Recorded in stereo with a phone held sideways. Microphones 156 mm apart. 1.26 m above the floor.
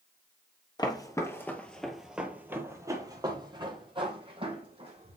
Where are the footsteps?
25° left (ahead or behind), 1.4 m; by 5.2 s 40° right (ahead or behind), 2.5 m.